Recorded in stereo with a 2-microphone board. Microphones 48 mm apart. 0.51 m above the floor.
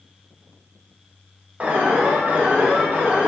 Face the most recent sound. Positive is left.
turn(degrees=-30)  # may be behind; listen again after turning